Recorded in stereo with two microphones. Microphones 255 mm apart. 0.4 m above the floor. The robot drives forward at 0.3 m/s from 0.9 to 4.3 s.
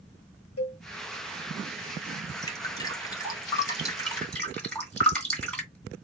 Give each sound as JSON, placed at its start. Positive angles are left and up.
{"t": 0.6, "sound": "a cowbell", "side_deg": 70, "distance_m": 0.9}
{"t": 2.4, "sound": "dripping", "side_deg": 15, "distance_m": 1.5}
{"t": 4.1, "sound": "dripping", "side_deg": 5, "distance_m": 2.5}